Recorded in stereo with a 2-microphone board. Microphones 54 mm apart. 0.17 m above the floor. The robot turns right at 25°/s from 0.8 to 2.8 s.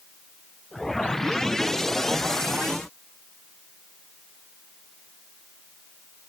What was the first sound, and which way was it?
Only background noise.